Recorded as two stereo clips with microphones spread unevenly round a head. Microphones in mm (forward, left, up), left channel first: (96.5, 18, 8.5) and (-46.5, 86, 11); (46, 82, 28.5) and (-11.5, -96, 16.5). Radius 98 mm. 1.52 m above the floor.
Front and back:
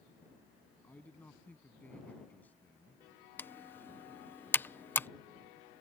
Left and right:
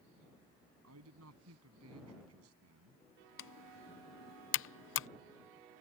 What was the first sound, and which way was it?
A man speaking, 110° right.